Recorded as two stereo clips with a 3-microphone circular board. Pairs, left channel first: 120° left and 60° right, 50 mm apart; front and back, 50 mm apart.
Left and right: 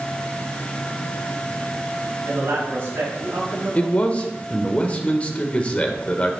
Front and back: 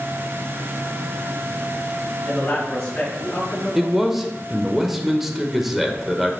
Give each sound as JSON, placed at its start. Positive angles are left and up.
{"t": 2.3, "sound": "a man speaking", "azimuth_deg": -65, "distance_m": 2.5}
{"t": 3.8, "sound": "a man speaking", "azimuth_deg": 100, "distance_m": 0.8}